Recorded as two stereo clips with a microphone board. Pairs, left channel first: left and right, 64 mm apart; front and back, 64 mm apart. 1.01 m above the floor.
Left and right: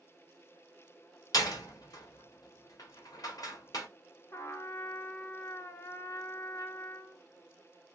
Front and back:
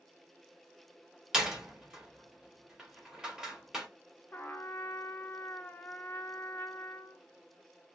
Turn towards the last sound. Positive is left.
turn(degrees=55)